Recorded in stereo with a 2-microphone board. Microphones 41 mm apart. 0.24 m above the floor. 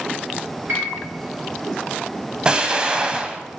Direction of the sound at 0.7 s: 45° right (ahead or behind).